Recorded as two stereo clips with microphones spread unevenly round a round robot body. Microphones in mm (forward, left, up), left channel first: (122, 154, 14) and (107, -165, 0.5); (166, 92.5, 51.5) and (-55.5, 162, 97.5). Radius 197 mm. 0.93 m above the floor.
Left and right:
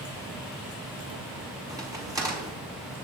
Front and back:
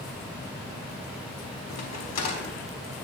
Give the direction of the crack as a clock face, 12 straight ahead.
12 o'clock.